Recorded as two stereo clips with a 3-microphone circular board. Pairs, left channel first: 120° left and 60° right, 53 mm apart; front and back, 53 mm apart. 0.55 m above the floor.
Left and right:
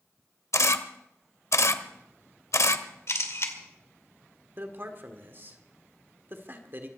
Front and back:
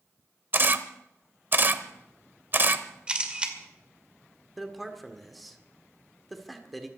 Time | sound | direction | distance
0.5 | a camera shutter | 135° left | 1.0 m
3.1 | a camera shutter | 115° left | 2 m
4.6 | a man speaking | 90° right | 1.6 m